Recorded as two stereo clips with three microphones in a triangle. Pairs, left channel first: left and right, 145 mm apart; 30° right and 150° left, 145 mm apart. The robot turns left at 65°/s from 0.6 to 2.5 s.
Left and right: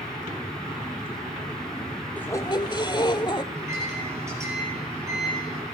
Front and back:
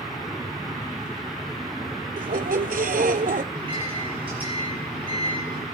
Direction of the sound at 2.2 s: 170° left.